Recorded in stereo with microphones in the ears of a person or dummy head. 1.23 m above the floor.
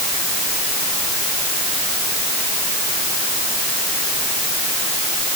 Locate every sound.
Only background noise.